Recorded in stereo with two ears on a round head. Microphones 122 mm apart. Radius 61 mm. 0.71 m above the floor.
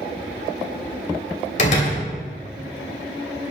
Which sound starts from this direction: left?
A door slam, at 1.6 s.